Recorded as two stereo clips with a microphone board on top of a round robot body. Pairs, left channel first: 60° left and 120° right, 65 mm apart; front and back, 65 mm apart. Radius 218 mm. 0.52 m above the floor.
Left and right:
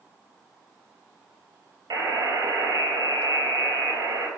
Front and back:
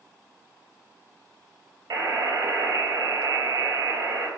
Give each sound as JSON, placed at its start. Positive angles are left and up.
{"t": 1.9, "sound": "a buzzer", "azimuth_deg": -145, "distance_m": 3.5}